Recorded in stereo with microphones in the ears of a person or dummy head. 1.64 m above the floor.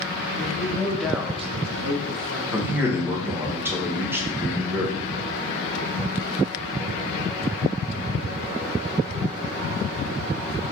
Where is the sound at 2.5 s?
15° right (ahead or behind), 1.0 m.